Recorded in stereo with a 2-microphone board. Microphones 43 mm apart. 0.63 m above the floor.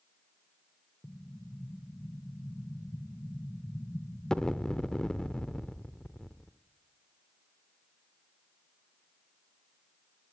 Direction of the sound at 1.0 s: 15° left (ahead or behind).